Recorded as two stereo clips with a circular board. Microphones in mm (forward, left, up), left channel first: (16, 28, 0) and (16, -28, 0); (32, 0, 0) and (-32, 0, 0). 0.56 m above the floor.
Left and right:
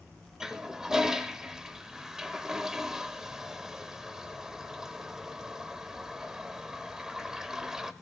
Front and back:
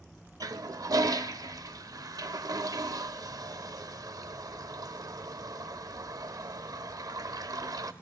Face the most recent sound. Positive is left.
turn(degrees=-170)